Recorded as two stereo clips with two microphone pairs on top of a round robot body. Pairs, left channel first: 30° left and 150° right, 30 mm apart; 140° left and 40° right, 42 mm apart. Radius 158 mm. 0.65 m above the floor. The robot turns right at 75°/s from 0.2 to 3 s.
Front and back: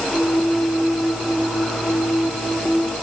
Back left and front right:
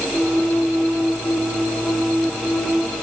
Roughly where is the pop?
I don't hear a pop.